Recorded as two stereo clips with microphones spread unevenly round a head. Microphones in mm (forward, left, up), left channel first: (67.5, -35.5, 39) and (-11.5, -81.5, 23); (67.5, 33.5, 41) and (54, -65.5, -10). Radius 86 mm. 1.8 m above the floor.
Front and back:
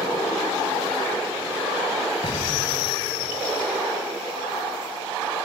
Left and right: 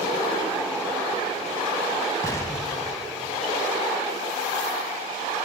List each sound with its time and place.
2.2 s an explosion: 55° left, 3 m